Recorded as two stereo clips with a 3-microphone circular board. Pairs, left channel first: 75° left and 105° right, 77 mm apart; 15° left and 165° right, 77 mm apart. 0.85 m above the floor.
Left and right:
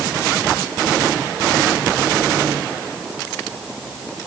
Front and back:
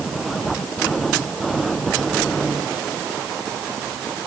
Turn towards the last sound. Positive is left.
No sound to turn to.